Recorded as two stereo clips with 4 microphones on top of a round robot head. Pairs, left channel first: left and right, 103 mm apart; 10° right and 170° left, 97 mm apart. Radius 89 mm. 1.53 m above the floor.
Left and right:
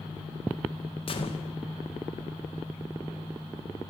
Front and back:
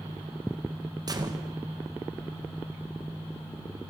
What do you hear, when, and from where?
1.1 s a gunshot: 120° left, 2.5 m